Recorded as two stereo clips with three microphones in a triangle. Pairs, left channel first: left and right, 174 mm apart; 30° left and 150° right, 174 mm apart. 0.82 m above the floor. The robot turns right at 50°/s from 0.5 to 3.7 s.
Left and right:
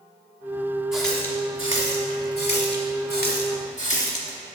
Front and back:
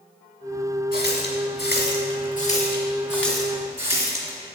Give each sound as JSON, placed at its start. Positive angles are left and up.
{"t": 0.9, "sound": "a running tap", "azimuth_deg": -5, "distance_m": 1.2}